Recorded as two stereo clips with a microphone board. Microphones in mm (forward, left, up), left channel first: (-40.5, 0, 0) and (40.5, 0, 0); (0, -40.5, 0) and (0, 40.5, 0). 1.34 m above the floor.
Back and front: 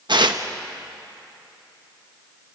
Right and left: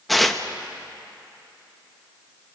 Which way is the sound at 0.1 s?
Straight ahead.